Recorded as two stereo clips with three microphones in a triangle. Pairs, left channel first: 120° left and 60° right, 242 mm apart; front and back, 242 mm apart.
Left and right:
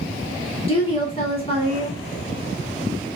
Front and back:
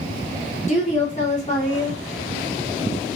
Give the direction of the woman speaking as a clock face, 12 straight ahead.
10 o'clock.